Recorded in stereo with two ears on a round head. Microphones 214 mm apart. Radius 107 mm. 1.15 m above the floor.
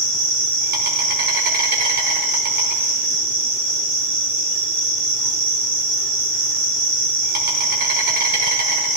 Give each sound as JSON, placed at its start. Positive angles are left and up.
{"t": 0.0, "sound": "an insect", "side_deg": -45, "distance_m": 4.5}